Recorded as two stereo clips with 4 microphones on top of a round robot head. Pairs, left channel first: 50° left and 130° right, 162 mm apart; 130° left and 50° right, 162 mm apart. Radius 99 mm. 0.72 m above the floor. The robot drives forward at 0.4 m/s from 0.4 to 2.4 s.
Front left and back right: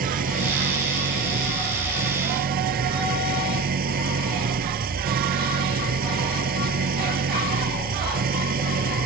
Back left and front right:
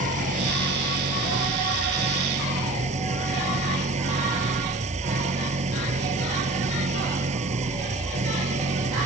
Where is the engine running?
95° right; by 9.1 s 100° right.